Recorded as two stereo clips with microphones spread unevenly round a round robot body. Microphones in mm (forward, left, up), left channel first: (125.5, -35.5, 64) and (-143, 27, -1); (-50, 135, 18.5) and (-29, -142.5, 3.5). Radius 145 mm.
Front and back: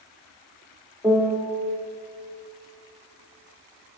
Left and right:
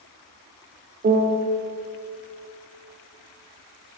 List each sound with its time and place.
1.0 s a piano: 120° right, 0.9 m